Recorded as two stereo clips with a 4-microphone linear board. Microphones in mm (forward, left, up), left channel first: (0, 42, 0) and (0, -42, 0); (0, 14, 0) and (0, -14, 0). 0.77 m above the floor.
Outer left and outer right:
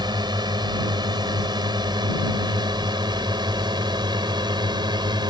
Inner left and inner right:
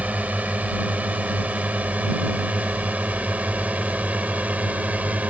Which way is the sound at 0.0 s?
60° right (ahead or behind).